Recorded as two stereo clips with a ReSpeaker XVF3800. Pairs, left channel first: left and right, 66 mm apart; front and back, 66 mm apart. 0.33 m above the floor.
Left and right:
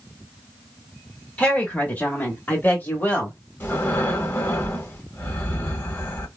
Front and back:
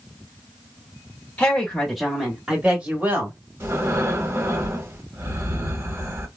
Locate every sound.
1.4 s a woman speaking: 55° left, 1.3 m; by 3.4 s 140° left, 1.6 m
3.6 s breathing: 140° left, 0.9 m